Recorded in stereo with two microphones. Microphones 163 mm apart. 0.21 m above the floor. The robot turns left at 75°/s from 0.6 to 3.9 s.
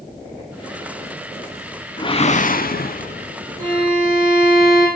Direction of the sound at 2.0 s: 150° left.